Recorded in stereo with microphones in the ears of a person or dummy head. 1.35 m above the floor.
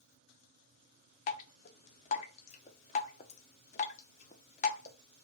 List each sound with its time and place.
1.3 s dripping: 35° left (ahead or behind), 0.5 m